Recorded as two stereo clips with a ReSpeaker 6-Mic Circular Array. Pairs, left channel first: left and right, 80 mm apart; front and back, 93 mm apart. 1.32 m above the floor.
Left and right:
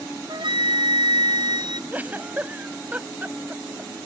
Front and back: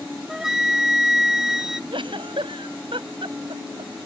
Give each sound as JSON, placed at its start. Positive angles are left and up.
{"t": 0.3, "sound": "a flute", "azimuth_deg": -95}
{"t": 1.9, "sound": "a giggle", "azimuth_deg": -160}